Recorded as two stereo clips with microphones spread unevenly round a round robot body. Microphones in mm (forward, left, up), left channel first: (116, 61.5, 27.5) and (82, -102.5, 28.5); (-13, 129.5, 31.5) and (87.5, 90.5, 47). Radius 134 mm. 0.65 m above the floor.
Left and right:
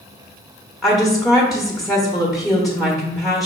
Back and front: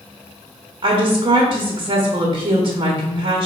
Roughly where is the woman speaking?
Ahead.